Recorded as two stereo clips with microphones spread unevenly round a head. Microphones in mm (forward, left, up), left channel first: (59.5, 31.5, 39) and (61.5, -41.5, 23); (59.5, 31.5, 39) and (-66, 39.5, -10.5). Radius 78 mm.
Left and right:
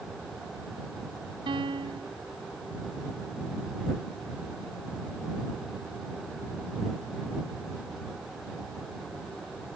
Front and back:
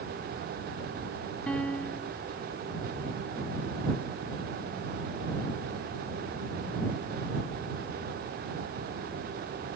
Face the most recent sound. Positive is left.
turn(degrees=-85)